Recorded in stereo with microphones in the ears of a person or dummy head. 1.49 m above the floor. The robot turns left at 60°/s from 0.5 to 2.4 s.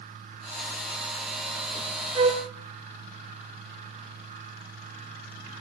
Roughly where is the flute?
Right.